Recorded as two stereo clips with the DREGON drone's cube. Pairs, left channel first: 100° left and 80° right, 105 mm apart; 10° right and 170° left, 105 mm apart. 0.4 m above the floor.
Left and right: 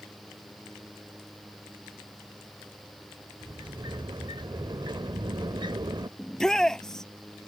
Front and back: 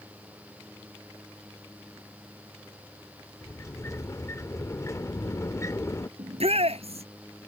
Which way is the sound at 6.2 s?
175° right.